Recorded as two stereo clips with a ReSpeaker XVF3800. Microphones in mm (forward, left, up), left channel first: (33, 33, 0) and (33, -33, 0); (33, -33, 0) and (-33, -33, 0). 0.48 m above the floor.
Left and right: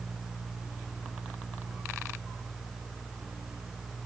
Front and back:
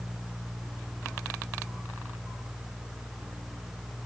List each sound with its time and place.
Only background noise.